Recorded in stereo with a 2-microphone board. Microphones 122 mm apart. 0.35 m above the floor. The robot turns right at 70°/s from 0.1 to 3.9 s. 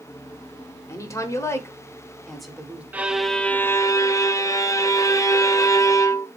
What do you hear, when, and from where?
0.9 s a woman speaking: 25° left (ahead or behind), 1.1 m; by 2.8 s 10° right (ahead or behind), 1.1 m
2.9 s a violin: 20° right, 0.5 m; by 6.3 s 45° left, 0.5 m